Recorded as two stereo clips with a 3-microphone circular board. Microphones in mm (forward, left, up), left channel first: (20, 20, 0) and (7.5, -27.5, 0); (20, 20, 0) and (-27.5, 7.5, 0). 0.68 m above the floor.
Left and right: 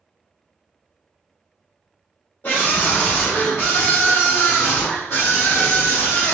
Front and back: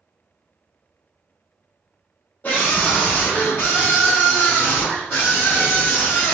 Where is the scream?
55° left, 1.1 m; by 6.3 s 60° left, 3 m.